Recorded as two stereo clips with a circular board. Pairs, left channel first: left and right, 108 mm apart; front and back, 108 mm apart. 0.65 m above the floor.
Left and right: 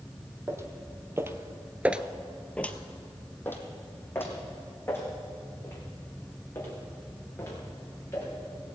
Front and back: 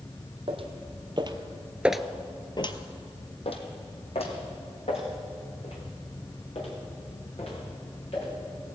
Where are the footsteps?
155° right, 1.6 m; by 8.3 s 20° left, 6.5 m.